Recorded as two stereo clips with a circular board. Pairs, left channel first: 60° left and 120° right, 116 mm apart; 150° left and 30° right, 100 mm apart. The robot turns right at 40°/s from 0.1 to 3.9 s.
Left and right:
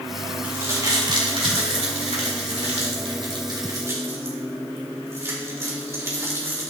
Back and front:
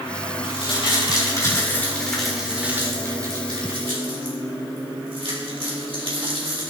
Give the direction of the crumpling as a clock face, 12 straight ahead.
6 o'clock.